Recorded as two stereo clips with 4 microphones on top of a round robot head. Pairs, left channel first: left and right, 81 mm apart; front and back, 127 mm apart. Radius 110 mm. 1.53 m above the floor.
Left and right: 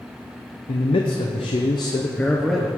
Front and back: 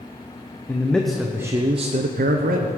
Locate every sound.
0.7 s a man speaking: 75° left, 0.9 m; by 2.7 s 175° right, 0.8 m